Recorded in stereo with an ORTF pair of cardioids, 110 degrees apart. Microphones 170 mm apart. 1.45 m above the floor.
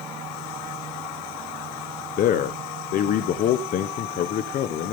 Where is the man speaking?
55° left, 0.9 m.